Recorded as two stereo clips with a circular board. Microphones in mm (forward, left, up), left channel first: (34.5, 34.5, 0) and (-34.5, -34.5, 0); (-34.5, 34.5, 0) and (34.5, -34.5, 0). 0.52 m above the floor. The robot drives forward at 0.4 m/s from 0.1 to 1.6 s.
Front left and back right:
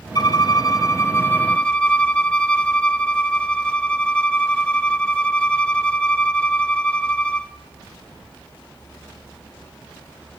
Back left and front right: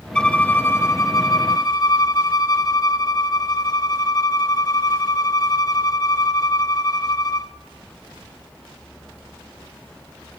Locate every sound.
0.1 s a violin: 55° left, 0.8 m; by 7.5 s 120° left, 0.8 m